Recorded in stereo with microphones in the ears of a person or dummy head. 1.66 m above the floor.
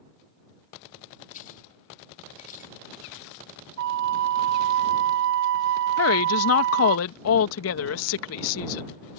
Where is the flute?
65° right (ahead or behind).